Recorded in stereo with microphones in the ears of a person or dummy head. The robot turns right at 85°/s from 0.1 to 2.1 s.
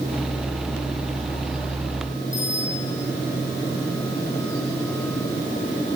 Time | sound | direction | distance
2.3 | a bicycle bell | 35° left (ahead or behind) | 10 m